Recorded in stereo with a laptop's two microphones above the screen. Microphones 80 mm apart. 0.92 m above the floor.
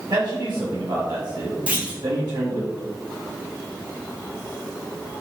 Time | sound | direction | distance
0.1 | a man speaking | 60° right (ahead or behind) | 1.1 m
1.7 | a clunk | 15° right (ahead or behind) | 0.9 m